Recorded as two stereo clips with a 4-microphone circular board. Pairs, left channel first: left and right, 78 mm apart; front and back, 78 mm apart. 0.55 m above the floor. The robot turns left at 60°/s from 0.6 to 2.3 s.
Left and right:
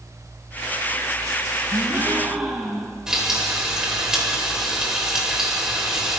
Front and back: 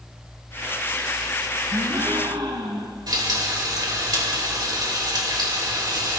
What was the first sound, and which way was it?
A gasp, 140° right.